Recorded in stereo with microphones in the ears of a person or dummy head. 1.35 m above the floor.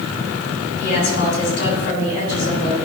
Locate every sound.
0.8 s a woman speaking: 60° left (ahead or behind), 3 m